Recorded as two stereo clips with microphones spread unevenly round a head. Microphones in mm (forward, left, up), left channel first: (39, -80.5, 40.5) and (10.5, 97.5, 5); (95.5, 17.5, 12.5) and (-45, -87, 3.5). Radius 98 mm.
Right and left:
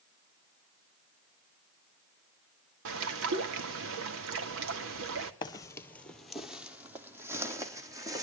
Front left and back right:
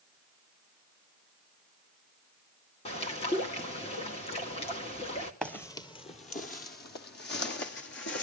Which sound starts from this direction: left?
A bird, at 2.9 s.